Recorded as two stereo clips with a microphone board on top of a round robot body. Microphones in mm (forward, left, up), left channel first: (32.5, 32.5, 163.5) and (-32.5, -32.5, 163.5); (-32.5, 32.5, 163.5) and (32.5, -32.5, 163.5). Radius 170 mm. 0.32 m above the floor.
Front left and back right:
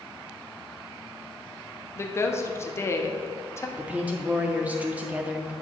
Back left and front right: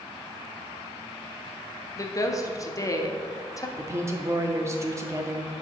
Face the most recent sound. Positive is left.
turn(degrees=-75)